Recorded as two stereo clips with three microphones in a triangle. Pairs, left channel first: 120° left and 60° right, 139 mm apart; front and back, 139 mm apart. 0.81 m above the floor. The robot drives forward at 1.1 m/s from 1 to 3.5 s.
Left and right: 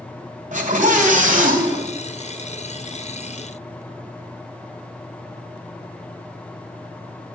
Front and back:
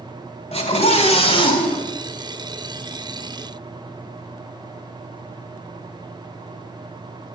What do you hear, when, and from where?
0.5 s a scream: 40° right, 3 m; by 1.9 s 60° right, 2 m